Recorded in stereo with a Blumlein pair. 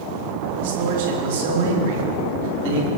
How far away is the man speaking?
About 3.5 m.